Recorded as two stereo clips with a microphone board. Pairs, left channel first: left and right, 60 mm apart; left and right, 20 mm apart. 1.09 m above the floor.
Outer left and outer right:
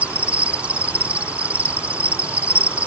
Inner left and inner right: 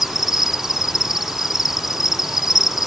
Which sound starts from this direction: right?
An insect, at 0.0 s.